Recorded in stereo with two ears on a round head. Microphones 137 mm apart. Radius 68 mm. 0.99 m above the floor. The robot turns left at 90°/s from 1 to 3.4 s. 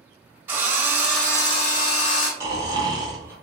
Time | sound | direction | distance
0.5 | a drill | 165° right | 1.0 m
2.4 | snoring | 15° right (ahead or behind) | 0.8 m